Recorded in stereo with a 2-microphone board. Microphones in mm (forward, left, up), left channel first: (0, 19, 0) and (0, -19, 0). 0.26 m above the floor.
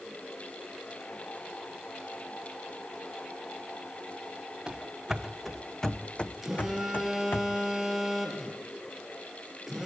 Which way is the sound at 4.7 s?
15° right (ahead or behind).